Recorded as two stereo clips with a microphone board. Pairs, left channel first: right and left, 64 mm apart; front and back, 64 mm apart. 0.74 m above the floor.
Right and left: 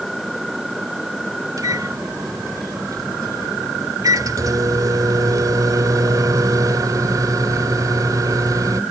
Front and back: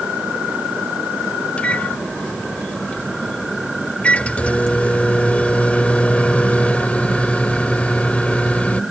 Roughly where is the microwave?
Left.